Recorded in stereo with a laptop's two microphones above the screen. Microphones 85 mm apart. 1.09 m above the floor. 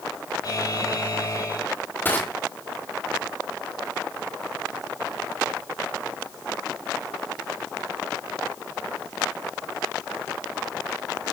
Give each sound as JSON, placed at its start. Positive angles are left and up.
{"t": 0.4, "sound": "a buzzer", "side_deg": 50, "distance_m": 6.5}
{"t": 2.0, "sound": "crushing", "side_deg": 25, "distance_m": 3.5}